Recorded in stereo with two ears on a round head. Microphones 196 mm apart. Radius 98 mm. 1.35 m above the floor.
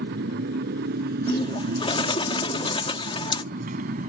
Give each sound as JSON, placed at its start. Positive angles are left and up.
{"t": 0.0, "sound": "a motorcycle", "side_deg": -50}
{"t": 1.3, "sound": "a bird", "side_deg": 25}